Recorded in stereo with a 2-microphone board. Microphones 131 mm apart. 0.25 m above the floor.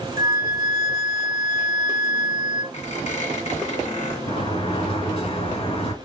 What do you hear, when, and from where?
0.2 s a flute: 30° right (ahead or behind), 0.6 m
2.7 s a squeak: 60° left (ahead or behind), 1.8 m
4.3 s a sliding door: 50° left (ahead or behind), 2.5 m